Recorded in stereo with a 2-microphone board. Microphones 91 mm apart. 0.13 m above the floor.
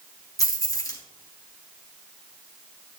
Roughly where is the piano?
No piano in this recording.